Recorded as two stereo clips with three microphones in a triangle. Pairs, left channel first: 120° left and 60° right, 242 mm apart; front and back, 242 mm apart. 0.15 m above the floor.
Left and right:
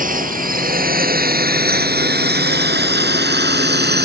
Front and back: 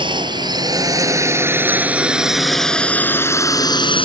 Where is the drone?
110° right; by 4.0 s 55° right.